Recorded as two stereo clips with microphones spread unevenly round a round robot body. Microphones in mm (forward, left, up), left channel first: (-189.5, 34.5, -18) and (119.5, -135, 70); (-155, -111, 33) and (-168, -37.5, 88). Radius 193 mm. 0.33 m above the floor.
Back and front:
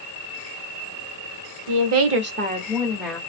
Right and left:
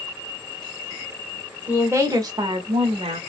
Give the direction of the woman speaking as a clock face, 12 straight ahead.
1 o'clock.